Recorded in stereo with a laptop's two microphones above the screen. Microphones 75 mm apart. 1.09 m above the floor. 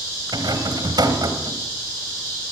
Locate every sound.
0.3 s a rattle: 65° right (ahead or behind), 3 m